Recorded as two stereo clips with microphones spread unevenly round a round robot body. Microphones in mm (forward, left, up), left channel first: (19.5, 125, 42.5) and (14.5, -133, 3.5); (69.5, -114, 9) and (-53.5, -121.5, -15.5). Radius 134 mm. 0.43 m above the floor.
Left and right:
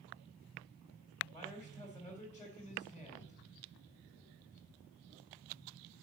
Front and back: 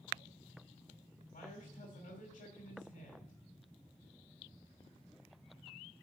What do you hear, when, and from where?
1.3 s a man speaking: 5° left, 3 m